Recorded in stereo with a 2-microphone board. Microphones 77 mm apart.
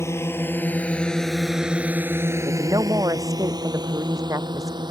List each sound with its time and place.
0.0 s a drone: 35° left (ahead or behind); by 4.9 s 75° right (ahead or behind)
2.5 s a woman speaking: 50° right (ahead or behind)